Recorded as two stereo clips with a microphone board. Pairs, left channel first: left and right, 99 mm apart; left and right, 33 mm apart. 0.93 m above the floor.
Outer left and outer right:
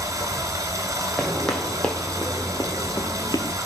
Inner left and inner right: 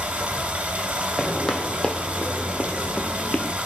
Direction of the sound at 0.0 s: 35° right (ahead or behind).